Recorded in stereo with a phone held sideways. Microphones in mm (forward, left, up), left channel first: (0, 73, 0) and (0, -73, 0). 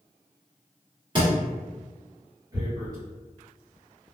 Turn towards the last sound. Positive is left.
turn(degrees=-25)  # may be behind; listen again after turning